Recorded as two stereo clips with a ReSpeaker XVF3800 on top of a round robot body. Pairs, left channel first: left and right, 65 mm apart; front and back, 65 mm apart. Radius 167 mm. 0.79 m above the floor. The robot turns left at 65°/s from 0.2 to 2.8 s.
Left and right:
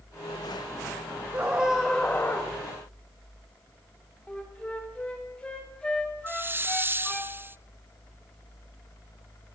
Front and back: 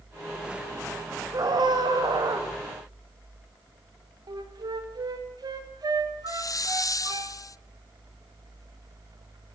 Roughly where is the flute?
Behind.